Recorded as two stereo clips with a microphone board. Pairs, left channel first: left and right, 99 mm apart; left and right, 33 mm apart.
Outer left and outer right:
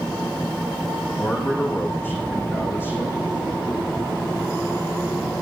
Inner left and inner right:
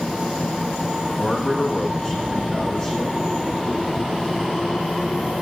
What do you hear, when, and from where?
1.2 s a man speaking: 20° left (ahead or behind), 7.5 m